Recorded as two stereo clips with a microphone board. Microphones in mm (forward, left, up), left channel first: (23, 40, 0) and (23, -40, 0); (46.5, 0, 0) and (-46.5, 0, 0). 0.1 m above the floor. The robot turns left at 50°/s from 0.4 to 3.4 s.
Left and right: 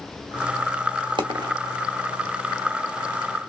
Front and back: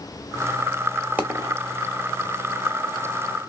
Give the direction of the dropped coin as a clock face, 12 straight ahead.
4 o'clock.